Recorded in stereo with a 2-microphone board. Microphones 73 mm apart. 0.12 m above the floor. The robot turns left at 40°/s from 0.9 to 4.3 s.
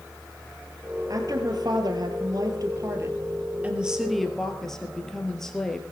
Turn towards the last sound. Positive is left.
turn(degrees=175)